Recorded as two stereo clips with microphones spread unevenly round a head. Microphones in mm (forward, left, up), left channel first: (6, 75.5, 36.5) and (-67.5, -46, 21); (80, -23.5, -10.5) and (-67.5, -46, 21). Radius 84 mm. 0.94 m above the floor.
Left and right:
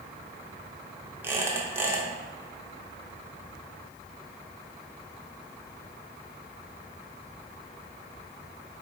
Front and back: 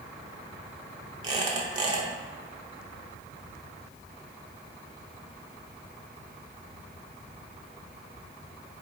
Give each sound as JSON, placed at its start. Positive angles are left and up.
{"t": 1.2, "sound": "a squeak", "azimuth_deg": 165, "distance_m": 0.6}